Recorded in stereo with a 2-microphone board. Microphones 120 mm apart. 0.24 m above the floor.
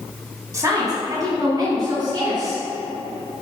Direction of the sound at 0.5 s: 30° right (ahead or behind).